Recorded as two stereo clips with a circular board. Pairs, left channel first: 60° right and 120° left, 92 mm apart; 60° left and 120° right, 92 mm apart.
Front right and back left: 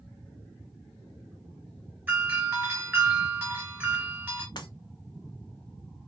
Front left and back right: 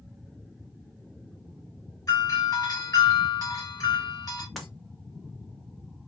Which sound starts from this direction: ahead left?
A doorbell, at 2.1 s.